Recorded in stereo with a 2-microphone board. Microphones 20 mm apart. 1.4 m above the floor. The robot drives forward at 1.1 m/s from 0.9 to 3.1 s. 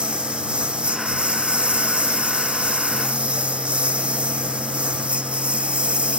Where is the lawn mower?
70° right (ahead or behind); by 6.2 s 85° right.